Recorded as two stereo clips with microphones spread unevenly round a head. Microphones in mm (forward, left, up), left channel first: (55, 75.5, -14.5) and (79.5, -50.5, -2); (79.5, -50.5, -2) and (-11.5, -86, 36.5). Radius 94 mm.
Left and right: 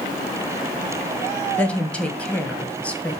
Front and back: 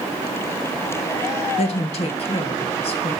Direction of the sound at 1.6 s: 20° left.